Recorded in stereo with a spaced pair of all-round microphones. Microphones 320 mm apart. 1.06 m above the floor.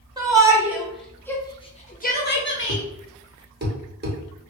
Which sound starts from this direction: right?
A thud, at 2.7 s.